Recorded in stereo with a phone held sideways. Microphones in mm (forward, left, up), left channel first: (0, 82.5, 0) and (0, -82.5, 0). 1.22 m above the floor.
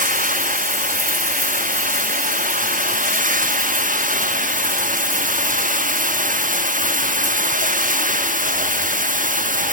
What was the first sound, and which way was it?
Running water, 55° right (ahead or behind).